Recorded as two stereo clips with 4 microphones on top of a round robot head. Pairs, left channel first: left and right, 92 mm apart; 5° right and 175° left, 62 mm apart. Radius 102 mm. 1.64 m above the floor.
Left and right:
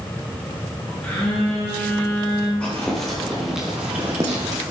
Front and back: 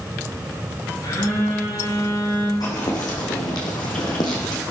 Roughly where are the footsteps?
Ahead.